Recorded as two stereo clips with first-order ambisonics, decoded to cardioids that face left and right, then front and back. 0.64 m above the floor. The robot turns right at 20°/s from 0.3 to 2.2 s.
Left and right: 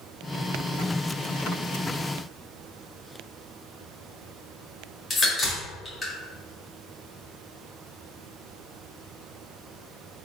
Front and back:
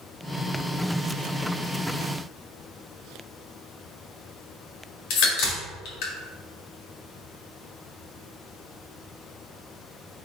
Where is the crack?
15° left, 1.6 m.